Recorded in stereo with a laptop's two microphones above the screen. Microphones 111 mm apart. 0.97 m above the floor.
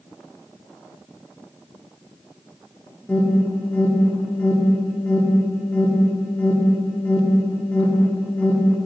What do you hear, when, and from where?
3.1 s an alarm: 10° left (ahead or behind), 2 m